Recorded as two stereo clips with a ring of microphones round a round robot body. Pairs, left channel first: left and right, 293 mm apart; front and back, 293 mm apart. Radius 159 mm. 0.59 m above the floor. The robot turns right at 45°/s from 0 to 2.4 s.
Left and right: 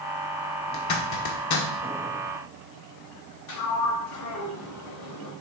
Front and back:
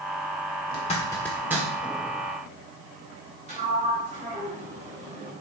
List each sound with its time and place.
0.7 s a zipper: 60° left, 1.4 m; by 1.7 s 105° left, 1.4 m
3.5 s a sliding door: 110° left, 3 m